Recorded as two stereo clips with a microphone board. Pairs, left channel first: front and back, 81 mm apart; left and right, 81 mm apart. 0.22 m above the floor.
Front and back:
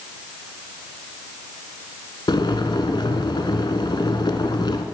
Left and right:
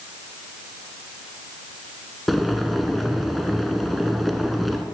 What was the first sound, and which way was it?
Boiling, straight ahead.